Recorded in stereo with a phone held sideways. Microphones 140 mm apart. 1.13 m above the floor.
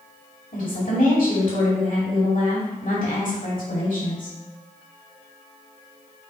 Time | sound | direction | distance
0.5 | a woman speaking | 75° left (ahead or behind) | 2.5 m